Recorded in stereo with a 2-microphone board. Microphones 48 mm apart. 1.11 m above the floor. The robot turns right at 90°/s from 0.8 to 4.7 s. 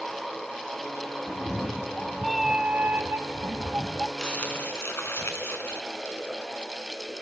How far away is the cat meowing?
About 0.5 m.